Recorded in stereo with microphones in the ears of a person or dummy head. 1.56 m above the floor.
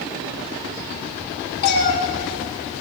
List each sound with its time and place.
1.6 s a cat meowing: 55° left (ahead or behind), 1.4 m